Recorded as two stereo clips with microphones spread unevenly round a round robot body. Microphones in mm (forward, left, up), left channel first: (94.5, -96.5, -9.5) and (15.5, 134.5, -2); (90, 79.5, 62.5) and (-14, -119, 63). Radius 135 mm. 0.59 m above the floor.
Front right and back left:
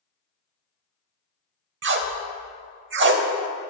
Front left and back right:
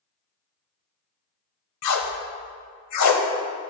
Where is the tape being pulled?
70° left, 0.7 m.